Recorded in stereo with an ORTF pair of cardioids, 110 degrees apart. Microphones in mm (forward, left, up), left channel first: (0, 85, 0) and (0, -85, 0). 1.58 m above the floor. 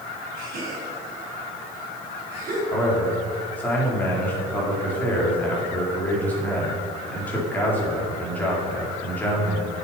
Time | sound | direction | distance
0.4 | a gasp | 65° right | 4 m
2.7 | a man speaking | 10° left | 4.5 m